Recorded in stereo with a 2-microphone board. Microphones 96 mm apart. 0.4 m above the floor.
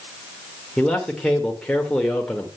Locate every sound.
0.8 s a man speaking: 10° left (ahead or behind), 1.4 m